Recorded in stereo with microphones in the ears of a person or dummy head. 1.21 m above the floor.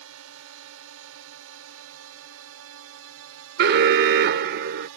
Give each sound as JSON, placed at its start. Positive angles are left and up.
{"t": 0.0, "sound": "a drone", "side_deg": -75}
{"t": 3.6, "sound": "an alarm", "side_deg": -55}